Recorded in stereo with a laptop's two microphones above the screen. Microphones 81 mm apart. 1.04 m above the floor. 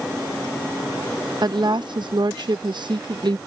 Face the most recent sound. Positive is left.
turn(degrees=-65)  # may be behind; listen again after turning